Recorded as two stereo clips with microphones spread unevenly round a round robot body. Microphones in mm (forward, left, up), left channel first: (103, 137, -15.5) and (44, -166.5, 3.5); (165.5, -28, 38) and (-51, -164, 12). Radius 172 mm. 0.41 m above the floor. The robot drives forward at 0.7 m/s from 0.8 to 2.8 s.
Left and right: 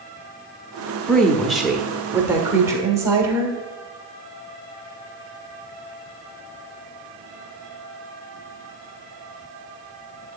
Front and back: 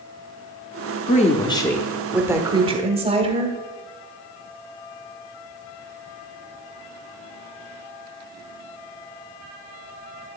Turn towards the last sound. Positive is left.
turn(degrees=180)